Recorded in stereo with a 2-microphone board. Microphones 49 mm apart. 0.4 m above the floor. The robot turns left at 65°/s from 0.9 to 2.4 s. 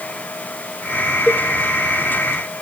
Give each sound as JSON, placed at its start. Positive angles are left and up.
{"t": 1.3, "sound": "a cowbell", "side_deg": -10, "distance_m": 1.5}